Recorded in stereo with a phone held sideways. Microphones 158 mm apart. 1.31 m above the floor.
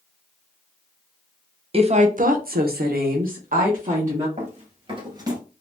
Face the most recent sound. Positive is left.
turn(degrees=-20)  # may be behind; listen again after turning